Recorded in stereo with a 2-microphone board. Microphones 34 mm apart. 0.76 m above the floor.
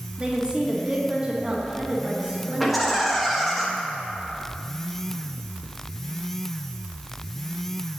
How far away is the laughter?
About 1.3 m.